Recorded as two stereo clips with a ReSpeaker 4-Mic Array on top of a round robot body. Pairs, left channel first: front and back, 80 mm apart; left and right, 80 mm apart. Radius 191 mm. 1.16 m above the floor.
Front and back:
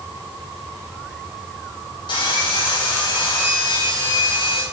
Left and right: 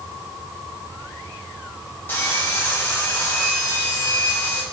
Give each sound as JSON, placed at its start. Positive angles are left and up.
{"t": 2.1, "sound": "sawing", "azimuth_deg": 20, "distance_m": 2.5}